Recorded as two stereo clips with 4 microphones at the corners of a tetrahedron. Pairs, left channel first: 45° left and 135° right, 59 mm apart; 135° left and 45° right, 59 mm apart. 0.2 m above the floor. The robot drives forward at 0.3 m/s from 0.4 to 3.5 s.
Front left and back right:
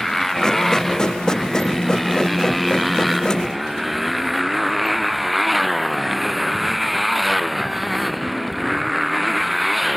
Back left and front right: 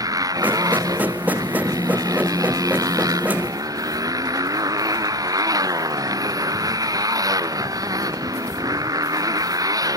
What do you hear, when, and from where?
0.0 s a motorcycle: 40° right; by 10.0 s 45° right